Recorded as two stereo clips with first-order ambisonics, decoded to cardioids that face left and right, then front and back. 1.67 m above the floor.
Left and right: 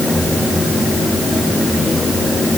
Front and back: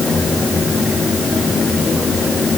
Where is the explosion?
I don't hear an explosion.